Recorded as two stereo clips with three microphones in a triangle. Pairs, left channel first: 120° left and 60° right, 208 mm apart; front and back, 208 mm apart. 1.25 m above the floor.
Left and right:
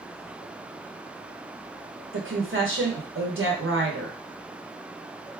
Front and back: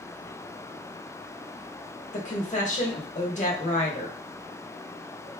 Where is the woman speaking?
50° right, 1.0 m.